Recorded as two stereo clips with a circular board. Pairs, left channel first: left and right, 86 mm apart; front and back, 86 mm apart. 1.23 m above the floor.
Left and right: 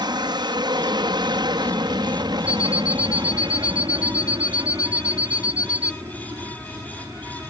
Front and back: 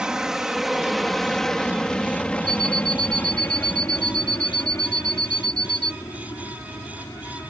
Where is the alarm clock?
140° left.